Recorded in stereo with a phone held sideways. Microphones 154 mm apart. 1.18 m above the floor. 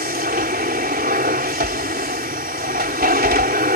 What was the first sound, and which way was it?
A machine running, 80° right.